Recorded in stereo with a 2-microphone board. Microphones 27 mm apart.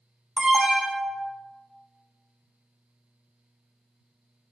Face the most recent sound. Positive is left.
turn(degrees=-25)  # may be behind; listen again after turning